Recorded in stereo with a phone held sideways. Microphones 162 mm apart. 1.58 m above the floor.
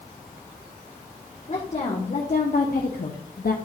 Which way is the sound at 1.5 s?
45° left (ahead or behind).